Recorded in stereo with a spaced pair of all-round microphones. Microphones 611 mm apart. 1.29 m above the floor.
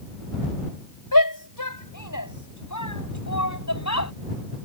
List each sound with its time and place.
1.1 s a shout: 35° left (ahead or behind); by 4.1 s 25° left (ahead or behind)